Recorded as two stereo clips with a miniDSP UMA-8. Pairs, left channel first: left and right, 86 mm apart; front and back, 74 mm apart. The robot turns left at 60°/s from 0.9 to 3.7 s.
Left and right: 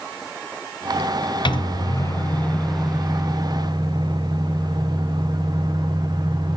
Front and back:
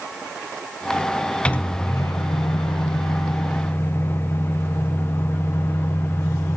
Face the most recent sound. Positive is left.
turn(degrees=-60)